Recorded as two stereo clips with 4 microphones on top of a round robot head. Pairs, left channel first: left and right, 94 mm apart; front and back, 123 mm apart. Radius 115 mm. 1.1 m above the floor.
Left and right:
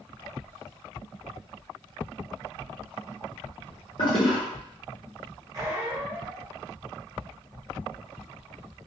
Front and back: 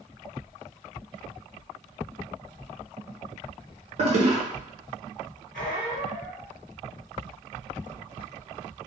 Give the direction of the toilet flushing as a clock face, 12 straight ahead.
7 o'clock.